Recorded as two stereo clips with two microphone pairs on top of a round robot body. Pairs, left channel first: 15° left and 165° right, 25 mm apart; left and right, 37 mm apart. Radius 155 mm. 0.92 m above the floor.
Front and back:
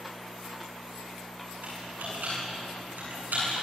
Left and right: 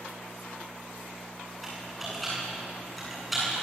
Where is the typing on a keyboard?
Straight behind, 9.5 m.